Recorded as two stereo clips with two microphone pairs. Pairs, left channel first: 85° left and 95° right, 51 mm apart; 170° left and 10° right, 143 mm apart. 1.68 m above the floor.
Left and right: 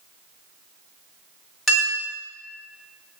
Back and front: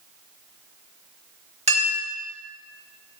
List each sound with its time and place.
1.7 s a clink: straight ahead, 1.4 m